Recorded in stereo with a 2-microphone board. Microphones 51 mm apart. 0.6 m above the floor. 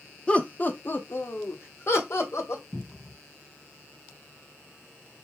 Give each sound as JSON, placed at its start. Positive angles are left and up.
{"t": 0.3, "sound": "laughter", "side_deg": 25, "distance_m": 0.9}
{"t": 2.7, "sound": "a cupboard door", "side_deg": 5, "distance_m": 1.7}